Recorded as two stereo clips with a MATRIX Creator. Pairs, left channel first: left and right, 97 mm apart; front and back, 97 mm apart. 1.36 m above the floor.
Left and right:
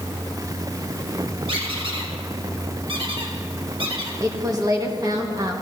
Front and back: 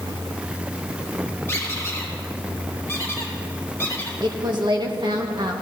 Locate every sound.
1.5 s a squeak: 60° right, 1.7 m
4.2 s a woman speaking: 140° right, 1.6 m